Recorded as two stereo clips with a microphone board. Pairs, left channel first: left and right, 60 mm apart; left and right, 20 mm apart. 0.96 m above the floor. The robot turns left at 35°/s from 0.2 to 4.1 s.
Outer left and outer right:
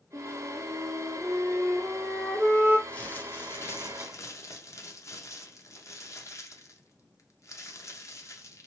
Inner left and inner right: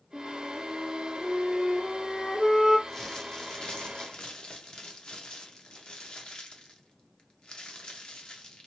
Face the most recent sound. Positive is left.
turn(degrees=110)